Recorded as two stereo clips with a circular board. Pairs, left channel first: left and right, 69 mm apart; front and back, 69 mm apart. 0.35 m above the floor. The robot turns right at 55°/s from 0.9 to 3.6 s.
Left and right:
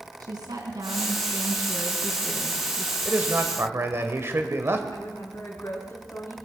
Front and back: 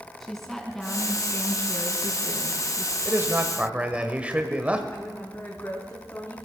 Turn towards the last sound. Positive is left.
turn(degrees=45)